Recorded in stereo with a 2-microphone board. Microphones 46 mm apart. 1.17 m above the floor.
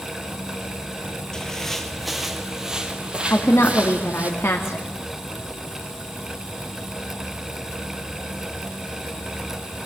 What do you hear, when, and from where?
1.3 s footsteps: 15° left (ahead or behind), 1.8 m; by 4.3 s 30° right (ahead or behind), 3 m
3.3 s a woman speaking: 60° left (ahead or behind), 2 m